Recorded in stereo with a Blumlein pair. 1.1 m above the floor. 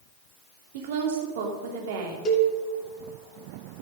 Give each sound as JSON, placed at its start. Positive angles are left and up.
{"t": 0.7, "sound": "a woman speaking", "azimuth_deg": -50, "distance_m": 2.5}
{"t": 2.2, "sound": "a cowbell", "azimuth_deg": 25, "distance_m": 2.5}